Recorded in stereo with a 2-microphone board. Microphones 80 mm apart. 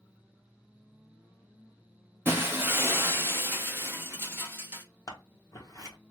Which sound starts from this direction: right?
Breaking glass, at 2.2 s.